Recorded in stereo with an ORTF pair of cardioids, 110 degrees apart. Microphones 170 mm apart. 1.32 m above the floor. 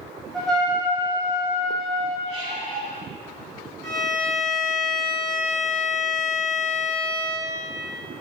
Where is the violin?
5° left, 2.0 m.